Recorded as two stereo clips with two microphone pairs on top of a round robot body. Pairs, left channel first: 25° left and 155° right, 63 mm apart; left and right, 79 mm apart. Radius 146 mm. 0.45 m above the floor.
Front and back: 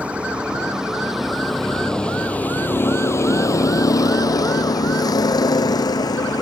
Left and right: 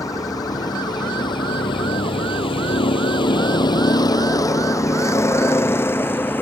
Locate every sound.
0.0 s a vehicle: 140° left; by 6.4 s 25° left